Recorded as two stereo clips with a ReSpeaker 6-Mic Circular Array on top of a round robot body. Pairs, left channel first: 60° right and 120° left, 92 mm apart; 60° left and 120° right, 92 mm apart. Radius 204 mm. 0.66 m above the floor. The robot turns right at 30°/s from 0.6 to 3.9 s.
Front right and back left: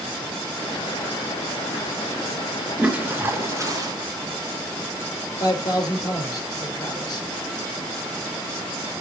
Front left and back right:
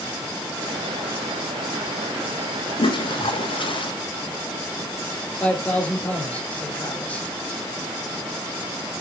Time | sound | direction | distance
2.8 | a toilet flushing | 40° left | 1.7 m
5.4 | a man speaking | 15° right | 4 m